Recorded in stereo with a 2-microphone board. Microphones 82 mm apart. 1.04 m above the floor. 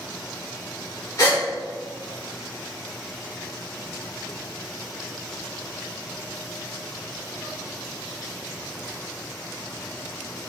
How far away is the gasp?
About 3.5 m.